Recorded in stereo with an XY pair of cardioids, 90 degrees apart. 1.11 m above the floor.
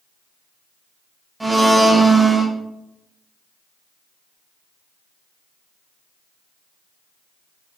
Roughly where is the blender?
Ahead.